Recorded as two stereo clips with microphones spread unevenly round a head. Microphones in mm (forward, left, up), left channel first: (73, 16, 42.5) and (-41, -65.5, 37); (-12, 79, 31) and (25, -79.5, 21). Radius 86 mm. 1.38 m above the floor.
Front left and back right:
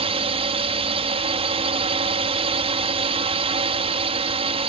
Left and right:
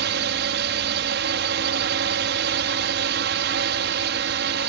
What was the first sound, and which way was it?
A drone, 95° right.